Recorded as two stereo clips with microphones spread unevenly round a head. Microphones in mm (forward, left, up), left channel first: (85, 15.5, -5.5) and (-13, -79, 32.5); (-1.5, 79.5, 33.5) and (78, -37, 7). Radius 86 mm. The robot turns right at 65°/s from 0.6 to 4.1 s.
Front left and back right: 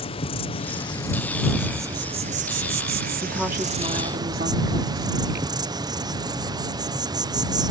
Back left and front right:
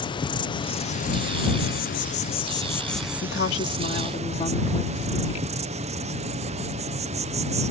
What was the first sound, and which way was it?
An insect, 65° left.